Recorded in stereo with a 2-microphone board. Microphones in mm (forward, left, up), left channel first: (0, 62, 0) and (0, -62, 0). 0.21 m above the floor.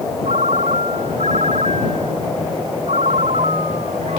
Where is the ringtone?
75° right (ahead or behind).